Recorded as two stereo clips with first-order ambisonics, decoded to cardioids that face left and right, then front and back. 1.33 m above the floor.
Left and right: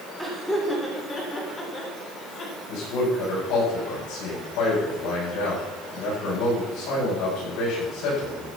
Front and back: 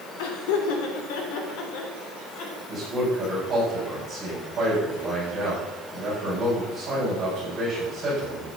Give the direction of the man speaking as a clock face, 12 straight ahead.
8 o'clock.